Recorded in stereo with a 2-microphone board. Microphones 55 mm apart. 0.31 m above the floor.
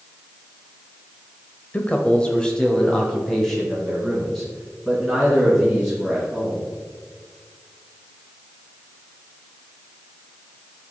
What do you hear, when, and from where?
1.7 s a man speaking: 25° left (ahead or behind), 1.0 m; by 6.7 s centre (ahead or behind), 4.5 m